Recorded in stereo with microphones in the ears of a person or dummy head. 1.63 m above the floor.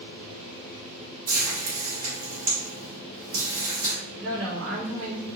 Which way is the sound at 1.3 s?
40° right (ahead or behind).